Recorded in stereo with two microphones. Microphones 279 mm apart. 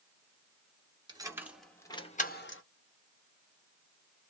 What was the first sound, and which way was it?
Keys jangling, 15° right (ahead or behind).